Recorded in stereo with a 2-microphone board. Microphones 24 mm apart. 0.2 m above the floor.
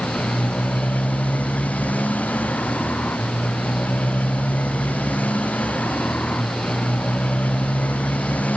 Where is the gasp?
No gasp in this recording.